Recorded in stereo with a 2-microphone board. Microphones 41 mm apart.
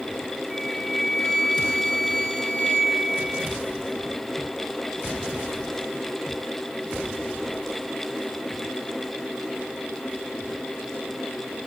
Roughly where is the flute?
Centre.